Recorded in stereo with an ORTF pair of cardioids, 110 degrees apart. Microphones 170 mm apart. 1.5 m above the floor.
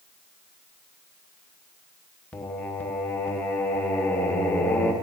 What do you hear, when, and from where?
2.3 s singing: 10° left, 1.0 m